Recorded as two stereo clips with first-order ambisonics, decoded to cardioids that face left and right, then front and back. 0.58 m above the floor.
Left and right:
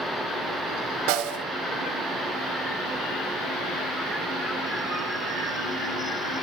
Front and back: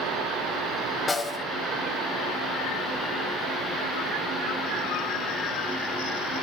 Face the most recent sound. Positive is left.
turn(degrees=-80)